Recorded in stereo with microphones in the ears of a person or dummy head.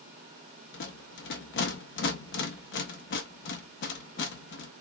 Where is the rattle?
70° left (ahead or behind), 1.3 m.